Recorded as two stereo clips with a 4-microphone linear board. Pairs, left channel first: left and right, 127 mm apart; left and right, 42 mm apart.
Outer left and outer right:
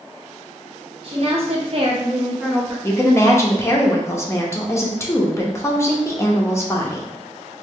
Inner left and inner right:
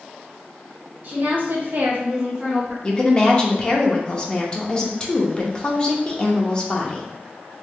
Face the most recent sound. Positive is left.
turn(degrees=20)  # may be behind; listen again after turning